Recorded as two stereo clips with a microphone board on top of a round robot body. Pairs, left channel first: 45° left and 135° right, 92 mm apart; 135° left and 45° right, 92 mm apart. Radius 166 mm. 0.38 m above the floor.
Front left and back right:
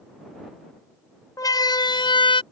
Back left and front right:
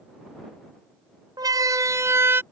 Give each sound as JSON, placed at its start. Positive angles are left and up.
{"t": 1.4, "sound": "a siren", "azimuth_deg": 0}